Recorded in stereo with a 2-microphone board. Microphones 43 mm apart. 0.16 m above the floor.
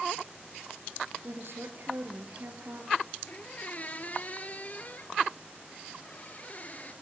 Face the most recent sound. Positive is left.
turn(degrees=40)  # may be behind; listen again after turning